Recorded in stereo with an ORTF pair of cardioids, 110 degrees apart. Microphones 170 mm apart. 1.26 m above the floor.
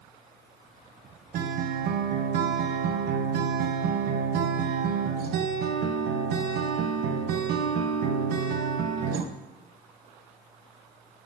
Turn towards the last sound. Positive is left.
turn(degrees=-65)